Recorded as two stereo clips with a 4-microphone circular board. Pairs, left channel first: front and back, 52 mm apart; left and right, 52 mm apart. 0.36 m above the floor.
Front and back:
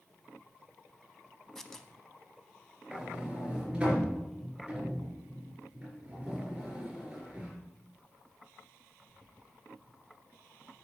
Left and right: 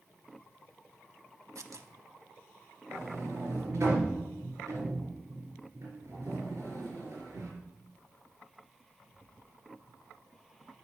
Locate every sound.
1.6 s tearing paper: 80° right, 0.7 m
2.9 s a sliding door: 105° right, 3.5 m